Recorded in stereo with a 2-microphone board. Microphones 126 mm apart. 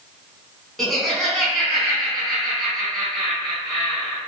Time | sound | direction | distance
0.8 | laughter | centre (ahead or behind) | 1.1 m